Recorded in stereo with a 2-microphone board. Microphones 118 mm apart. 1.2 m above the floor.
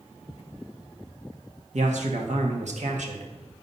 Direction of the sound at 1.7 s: 85° right.